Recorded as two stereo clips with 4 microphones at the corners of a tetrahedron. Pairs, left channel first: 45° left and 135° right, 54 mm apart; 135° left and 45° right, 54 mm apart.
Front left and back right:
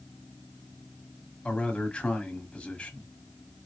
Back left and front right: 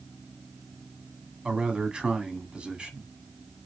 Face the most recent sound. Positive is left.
turn(degrees=5)